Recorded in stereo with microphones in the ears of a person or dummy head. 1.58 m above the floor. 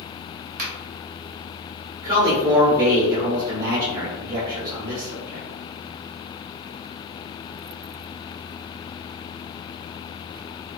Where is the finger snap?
45° right (ahead or behind), 0.8 m.